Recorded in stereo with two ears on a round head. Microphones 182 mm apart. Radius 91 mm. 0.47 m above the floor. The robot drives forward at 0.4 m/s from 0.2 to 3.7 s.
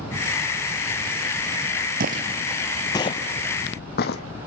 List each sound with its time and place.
2.0 s footsteps: 45° right (ahead or behind), 0.6 m; by 4.2 s 55° left (ahead or behind), 1.4 m